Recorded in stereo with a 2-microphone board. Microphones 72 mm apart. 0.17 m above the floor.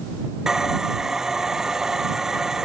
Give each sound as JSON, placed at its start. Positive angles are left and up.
{"t": 0.5, "sound": "sawing", "side_deg": -5}